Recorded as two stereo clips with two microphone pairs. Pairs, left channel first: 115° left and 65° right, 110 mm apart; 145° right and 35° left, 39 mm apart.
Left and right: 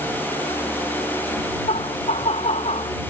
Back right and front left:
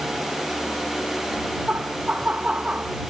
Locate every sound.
1.7 s laughter: 95° left